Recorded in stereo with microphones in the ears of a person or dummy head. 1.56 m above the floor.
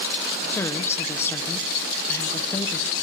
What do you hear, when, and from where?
0.5 s a woman speaking: 15° left (ahead or behind), 1.3 m